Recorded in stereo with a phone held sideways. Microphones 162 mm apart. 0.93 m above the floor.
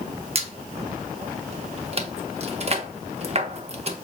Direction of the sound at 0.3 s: 45° right (ahead or behind).